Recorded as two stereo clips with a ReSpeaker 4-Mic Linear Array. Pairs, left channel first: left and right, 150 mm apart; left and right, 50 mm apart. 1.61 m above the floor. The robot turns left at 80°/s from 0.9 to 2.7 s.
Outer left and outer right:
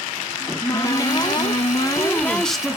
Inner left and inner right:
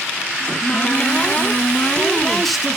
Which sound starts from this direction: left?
A cupboard door, at 0.4 s.